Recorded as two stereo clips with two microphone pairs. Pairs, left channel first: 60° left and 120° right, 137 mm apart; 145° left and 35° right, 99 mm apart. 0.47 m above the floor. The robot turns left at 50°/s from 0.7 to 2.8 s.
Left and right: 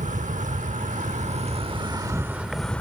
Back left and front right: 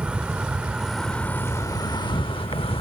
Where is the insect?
115° right; by 2.8 s 140° left.